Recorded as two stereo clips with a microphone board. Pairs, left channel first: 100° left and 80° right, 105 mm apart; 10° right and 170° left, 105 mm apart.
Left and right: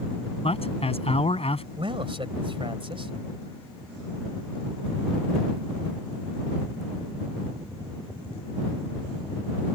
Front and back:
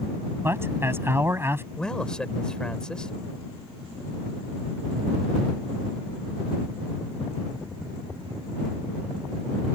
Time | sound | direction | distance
0.4 | a man speaking | 105° left | ?
1.8 | a man speaking | 90° right | ?